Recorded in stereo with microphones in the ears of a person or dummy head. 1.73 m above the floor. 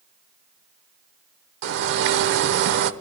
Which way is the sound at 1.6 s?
70° right (ahead or behind).